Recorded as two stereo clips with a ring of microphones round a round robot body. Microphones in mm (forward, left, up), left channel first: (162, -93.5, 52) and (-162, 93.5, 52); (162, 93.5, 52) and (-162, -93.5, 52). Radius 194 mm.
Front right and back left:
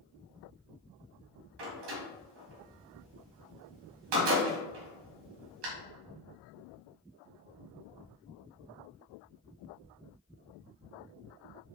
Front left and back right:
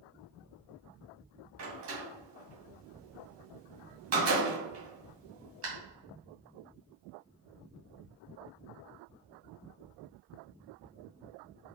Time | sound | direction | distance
1.6 | a door slam | 160° left | 2.5 m